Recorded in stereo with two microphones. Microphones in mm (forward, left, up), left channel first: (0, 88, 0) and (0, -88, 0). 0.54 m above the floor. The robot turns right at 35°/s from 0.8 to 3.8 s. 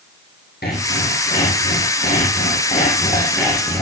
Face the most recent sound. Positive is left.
turn(degrees=175)